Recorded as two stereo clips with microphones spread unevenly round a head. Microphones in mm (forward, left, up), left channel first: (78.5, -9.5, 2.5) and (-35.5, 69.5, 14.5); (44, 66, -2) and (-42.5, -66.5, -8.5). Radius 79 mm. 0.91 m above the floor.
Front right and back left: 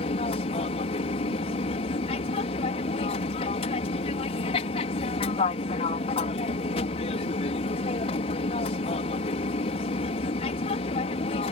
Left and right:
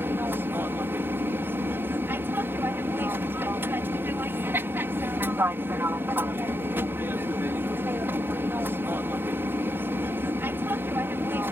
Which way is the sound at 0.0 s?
50° right.